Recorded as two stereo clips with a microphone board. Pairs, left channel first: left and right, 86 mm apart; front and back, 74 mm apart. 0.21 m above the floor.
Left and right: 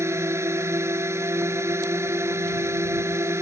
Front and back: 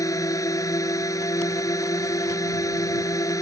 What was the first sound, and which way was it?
A drone, 35° right.